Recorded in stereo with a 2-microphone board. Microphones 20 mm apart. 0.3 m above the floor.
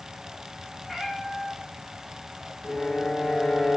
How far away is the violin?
About 6 m.